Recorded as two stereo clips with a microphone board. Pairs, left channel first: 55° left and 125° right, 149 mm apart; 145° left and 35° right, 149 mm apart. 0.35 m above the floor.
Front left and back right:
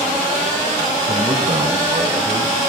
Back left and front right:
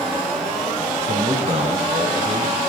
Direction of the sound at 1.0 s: 65° right.